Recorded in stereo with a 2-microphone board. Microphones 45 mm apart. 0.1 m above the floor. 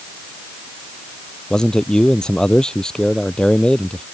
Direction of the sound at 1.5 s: 15° left (ahead or behind).